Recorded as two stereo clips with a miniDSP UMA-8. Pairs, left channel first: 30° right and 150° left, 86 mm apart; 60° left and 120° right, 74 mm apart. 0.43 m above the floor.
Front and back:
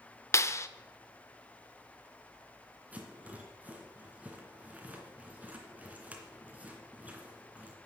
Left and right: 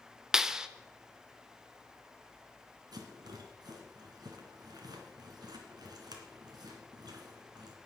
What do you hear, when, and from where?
0.3 s a clap: 45° right, 0.6 m
2.9 s a rattle: 140° right, 2.5 m